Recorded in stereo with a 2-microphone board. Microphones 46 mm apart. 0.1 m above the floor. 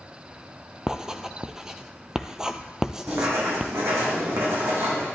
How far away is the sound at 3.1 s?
About 3.5 m.